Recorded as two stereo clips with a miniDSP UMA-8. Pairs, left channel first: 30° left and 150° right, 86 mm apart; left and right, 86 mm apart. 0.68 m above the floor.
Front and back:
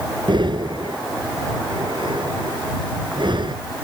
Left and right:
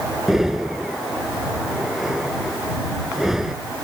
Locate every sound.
0.3 s breathing: 175° right